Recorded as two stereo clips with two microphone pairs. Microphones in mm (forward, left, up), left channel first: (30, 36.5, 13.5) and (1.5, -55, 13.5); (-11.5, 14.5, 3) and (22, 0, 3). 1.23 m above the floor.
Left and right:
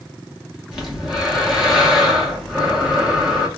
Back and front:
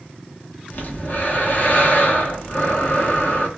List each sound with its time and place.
0.7 s breathing: 170° left, 0.9 m